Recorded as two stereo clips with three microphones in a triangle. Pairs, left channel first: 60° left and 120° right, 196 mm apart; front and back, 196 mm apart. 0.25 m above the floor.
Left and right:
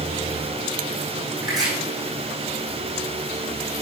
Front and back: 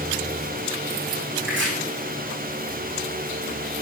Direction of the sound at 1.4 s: 170° left.